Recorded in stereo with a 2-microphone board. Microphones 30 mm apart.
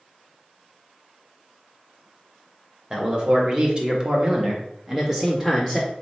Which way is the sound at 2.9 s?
30° right (ahead or behind).